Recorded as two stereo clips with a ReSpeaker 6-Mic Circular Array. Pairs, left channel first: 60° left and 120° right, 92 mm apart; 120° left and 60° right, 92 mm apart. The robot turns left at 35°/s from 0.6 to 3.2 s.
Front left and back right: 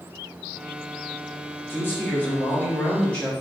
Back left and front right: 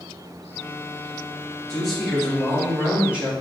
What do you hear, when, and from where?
1.7 s a man speaking: 50° left, 0.9 m; by 3.3 s 5° right, 0.9 m